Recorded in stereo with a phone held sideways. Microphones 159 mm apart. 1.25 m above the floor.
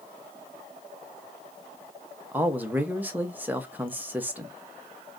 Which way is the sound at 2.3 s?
10° right (ahead or behind).